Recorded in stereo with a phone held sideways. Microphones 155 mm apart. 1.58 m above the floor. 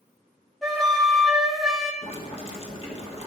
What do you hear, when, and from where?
0.6 s a flute: centre (ahead or behind), 1.0 m
2.0 s boiling: 40° left (ahead or behind), 1.4 m